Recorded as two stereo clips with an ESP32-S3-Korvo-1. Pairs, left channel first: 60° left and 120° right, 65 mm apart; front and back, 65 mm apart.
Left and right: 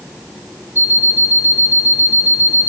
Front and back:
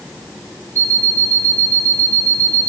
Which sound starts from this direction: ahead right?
An alarm clock, at 0.8 s.